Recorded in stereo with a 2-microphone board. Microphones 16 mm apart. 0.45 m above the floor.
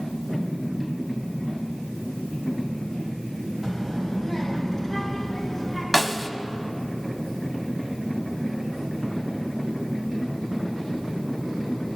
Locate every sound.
3.6 s a child speaking: 30° right (ahead or behind), 1.4 m; by 5.8 s 10° right (ahead or behind), 2.5 m
5.9 s a snare drum: 5° right (ahead or behind), 0.5 m